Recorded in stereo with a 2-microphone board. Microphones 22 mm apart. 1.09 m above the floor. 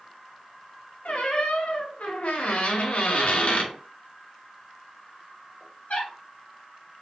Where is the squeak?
70° left (ahead or behind), 0.8 m.